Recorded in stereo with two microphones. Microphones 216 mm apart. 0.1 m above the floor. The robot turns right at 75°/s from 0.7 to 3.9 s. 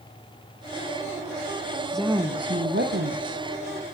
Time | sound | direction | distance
1.9 | a woman speaking | 175° left | 3.5 m